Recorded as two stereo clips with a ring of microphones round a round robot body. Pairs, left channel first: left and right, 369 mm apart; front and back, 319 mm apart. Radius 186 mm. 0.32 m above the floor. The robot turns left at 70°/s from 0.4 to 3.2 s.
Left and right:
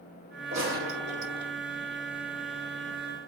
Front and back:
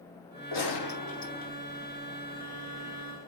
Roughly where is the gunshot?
Ahead.